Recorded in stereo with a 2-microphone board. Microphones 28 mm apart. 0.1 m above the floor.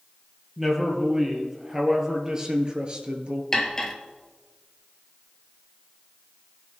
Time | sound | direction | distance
0.6 | a man speaking | 10° right (ahead or behind) | 2.5 m
3.5 | cutlery clinking | 15° left (ahead or behind) | 1.1 m